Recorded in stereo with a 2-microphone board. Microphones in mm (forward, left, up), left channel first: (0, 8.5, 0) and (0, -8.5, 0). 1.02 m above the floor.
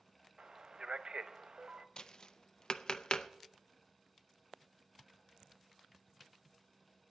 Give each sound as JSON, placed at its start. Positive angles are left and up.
{"t": 0.4, "sound": "a man speaking", "side_deg": -50, "distance_m": 0.9}
{"t": 2.0, "sound": "tapping", "side_deg": 40, "distance_m": 0.5}